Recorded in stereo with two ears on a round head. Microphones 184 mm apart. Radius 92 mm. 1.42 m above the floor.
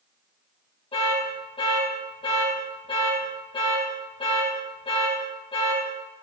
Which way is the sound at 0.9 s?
25° left (ahead or behind).